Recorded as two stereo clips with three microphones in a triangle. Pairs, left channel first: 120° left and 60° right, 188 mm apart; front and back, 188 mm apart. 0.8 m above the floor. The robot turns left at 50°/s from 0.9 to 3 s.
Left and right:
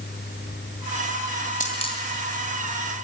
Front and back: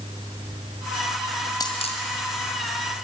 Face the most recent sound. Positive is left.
turn(degrees=0)